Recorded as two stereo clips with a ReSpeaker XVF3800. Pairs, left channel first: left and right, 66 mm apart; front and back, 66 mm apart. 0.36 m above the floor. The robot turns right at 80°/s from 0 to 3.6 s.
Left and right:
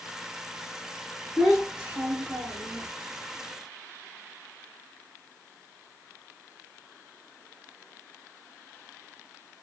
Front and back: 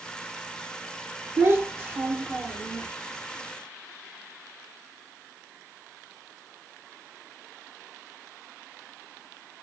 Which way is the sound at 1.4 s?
175° left.